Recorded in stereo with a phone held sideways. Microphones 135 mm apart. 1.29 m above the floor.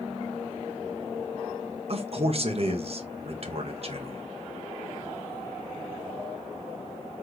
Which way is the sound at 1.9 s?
50° right (ahead or behind).